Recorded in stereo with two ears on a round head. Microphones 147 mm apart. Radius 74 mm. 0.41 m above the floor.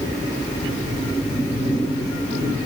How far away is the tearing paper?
No tearing paper in this recording.